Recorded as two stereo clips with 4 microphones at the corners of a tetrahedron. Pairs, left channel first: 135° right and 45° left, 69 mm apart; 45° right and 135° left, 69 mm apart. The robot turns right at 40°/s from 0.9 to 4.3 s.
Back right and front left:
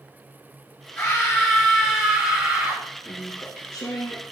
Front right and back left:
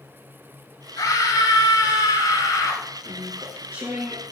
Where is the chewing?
175° left, 4.5 m; by 4.2 s 140° right, 4.5 m.